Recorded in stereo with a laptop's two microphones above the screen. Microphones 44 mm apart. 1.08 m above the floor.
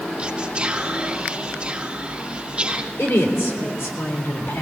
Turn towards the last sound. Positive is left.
turn(degrees=75)  # may be behind; listen again after turning